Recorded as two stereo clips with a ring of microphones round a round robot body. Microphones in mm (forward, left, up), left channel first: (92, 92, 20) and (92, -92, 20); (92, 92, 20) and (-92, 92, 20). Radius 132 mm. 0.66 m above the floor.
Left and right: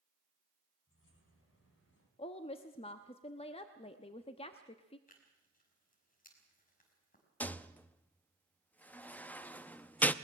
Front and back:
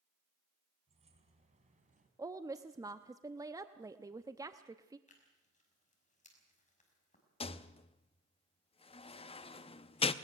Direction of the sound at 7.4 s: 15° left.